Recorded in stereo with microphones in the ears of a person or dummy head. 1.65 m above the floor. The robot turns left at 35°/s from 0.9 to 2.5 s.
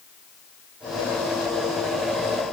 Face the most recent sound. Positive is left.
No sound to turn to.